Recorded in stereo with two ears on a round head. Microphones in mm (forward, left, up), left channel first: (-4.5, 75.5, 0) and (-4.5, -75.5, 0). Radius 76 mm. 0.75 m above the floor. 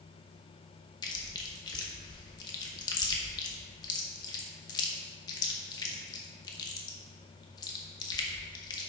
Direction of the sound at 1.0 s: 25° left (ahead or behind).